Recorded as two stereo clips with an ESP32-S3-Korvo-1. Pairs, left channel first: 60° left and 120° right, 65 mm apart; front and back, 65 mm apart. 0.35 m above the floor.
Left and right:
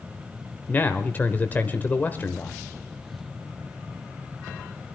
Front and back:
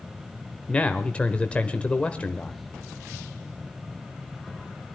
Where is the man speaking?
50° left, 0.9 m.